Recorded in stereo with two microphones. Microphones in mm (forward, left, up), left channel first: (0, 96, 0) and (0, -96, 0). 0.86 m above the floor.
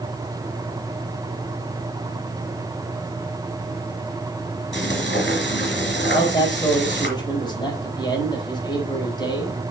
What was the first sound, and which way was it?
Frying, 65° left (ahead or behind).